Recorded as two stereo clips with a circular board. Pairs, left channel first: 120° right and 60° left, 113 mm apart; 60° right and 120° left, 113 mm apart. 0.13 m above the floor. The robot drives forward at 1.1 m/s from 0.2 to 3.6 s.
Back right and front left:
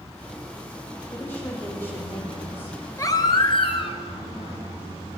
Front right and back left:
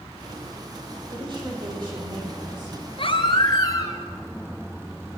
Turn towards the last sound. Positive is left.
turn(degrees=-110)